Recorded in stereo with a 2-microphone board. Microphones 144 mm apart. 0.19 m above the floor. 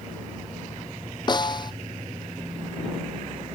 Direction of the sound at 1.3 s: 30° left (ahead or behind).